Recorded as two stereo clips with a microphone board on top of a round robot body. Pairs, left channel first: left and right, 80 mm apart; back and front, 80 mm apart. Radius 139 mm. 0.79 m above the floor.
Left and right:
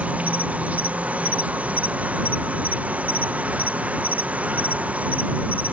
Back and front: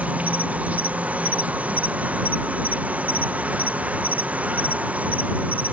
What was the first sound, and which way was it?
An insect, 45° right.